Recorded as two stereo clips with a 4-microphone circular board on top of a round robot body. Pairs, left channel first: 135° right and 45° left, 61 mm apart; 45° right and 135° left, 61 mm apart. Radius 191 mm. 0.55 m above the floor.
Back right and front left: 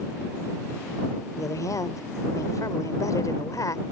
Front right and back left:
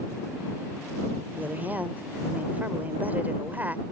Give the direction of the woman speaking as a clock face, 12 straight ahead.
5 o'clock.